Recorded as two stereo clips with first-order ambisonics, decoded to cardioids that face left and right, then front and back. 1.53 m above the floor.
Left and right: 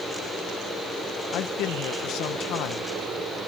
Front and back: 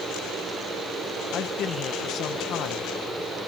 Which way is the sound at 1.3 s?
50° left.